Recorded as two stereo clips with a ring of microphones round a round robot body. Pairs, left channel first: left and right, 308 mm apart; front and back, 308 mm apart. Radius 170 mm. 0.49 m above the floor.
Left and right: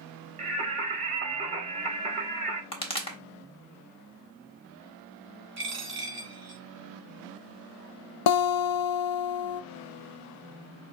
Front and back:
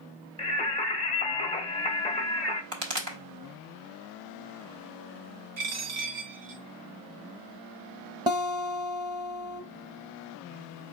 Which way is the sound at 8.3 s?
100° left.